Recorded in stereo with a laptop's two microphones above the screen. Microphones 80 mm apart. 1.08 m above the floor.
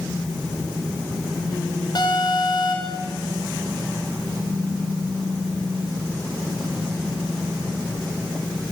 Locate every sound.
1.9 s an alarm: 55° left (ahead or behind), 6.5 m